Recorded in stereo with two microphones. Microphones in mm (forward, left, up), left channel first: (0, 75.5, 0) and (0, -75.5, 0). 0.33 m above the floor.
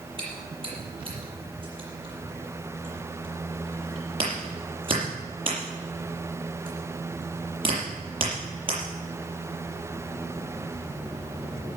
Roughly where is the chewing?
Right.